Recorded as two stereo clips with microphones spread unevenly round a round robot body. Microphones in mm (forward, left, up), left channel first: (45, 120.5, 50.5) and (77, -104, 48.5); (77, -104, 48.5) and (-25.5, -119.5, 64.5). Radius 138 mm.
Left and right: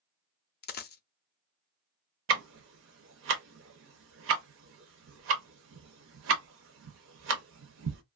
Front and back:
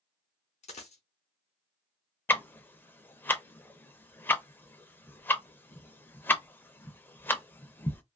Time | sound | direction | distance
0.6 | a dropped coin | 50° left | 0.5 m
2.3 | ticking | 65° right | 0.6 m